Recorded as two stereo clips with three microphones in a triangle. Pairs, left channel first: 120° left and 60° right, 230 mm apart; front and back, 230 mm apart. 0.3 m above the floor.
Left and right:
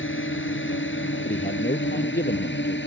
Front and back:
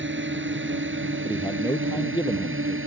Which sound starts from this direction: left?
A man speaking, at 1.2 s.